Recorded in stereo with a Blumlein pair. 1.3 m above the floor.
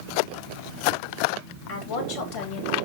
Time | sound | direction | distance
1.7 | a woman speaking | 40° left | 3 m